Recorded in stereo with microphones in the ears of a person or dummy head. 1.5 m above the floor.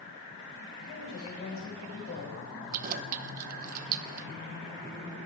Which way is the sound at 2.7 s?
45° right (ahead or behind).